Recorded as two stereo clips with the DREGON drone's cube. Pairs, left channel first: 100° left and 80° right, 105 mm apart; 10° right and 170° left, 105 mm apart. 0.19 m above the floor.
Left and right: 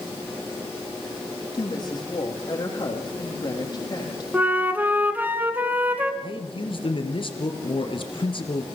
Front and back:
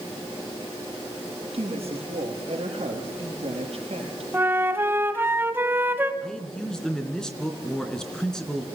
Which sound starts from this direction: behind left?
A woman speaking, at 1.5 s.